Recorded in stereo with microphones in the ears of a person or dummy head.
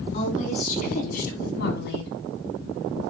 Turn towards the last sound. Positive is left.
turn(degrees=65)  # may be behind; listen again after turning